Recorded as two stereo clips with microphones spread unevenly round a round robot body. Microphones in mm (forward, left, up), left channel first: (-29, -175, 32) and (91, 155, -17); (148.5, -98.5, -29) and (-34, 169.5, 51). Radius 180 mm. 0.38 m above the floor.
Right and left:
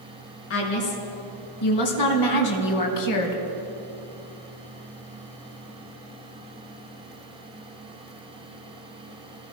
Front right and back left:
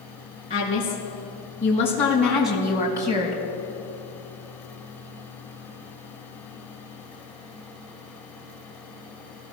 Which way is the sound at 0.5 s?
130° right.